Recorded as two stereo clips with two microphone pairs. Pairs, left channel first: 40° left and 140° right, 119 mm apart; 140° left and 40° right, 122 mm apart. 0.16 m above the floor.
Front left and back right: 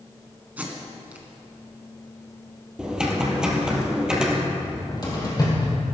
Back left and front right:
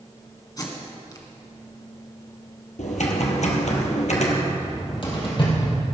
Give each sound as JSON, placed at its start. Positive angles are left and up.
{"t": 0.6, "sound": "tape being pulled", "azimuth_deg": 155, "distance_m": 1.9}
{"t": 2.8, "sound": "typing on a keyboard", "azimuth_deg": 140, "distance_m": 2.0}
{"t": 4.5, "sound": "a cupboard door", "azimuth_deg": 95, "distance_m": 4.0}